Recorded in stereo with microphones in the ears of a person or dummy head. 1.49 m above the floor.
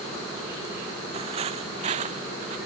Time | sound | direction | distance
1.1 | footsteps | 30° right (ahead or behind) | ?